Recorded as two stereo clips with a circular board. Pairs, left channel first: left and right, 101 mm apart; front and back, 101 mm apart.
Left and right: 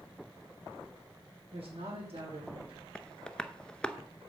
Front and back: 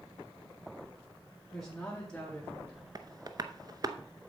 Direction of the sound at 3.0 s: 165° left.